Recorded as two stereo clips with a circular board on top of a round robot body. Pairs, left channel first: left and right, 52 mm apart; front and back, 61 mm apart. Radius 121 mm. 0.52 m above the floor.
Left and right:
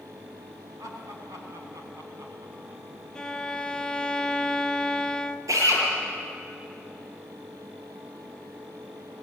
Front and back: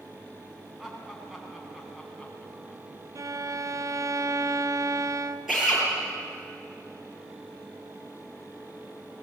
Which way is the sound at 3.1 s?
165° left.